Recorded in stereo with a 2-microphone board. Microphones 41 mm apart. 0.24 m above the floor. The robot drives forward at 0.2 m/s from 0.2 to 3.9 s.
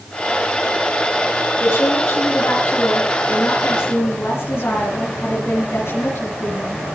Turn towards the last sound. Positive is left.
turn(degrees=70)  # may be behind; listen again after turning